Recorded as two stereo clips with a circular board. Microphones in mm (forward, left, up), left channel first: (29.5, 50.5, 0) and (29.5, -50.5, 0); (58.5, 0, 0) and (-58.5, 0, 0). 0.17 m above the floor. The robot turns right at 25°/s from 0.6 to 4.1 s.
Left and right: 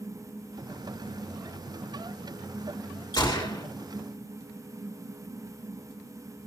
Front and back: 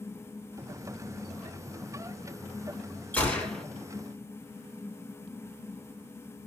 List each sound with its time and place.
3.1 s a gunshot: 70° left, 2.5 m; by 3.6 s 80° left, 2.5 m